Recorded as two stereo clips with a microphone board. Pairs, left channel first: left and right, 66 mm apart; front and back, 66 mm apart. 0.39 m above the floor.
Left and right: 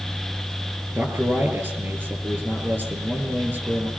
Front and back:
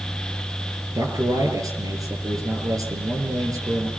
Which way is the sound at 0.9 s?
145° right.